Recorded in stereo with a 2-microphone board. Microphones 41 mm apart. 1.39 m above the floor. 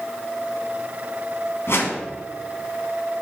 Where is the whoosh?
65° left (ahead or behind), 2 m.